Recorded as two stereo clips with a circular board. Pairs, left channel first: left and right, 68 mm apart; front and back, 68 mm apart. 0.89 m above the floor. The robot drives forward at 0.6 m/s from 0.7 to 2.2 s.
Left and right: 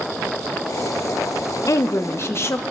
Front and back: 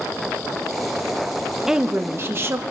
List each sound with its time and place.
1.7 s a woman speaking: 100° left, 0.5 m; by 2.6 s 135° left, 0.6 m